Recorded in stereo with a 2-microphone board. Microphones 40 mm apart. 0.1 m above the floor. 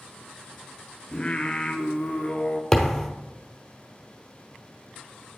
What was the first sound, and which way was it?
Singing, 25° left (ahead or behind).